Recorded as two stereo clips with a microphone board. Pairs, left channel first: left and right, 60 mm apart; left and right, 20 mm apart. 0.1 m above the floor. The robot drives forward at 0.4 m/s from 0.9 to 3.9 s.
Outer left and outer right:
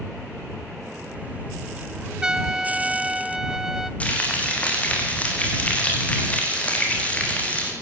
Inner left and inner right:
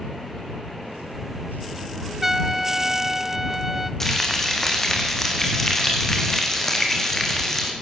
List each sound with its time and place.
2.2 s a trumpet: 15° right (ahead or behind), 0.5 m; by 3.9 s 5° right (ahead or behind), 1.1 m
4.0 s frying: 25° left (ahead or behind), 5 m